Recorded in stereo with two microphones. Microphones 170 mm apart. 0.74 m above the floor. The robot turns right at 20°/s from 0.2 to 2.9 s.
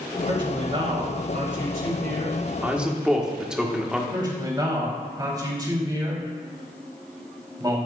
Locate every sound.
0.3 s a man speaking: 155° right, 3 m; by 2.4 s 110° right, 3 m
2.6 s a man speaking: 10° right (ahead or behind), 1.5 m; by 4.0 s 5° right (ahead or behind), 1.5 m
4.1 s a man speaking: 25° right (ahead or behind), 3.5 m